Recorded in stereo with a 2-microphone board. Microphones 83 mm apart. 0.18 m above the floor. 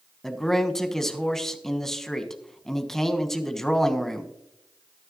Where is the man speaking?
5° left (ahead or behind), 1.2 m.